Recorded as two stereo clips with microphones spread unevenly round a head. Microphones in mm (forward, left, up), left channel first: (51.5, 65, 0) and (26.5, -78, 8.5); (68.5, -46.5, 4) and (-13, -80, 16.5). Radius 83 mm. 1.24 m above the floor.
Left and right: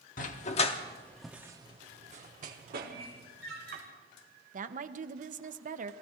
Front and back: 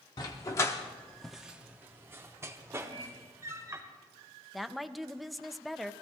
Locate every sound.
0.2 s a dog barking: 80° left, 1.1 m; by 3.8 s 110° right, 2.5 m
2.9 s a microwave: 165° left, 6.5 m
4.5 s a woman speaking: 65° right, 0.9 m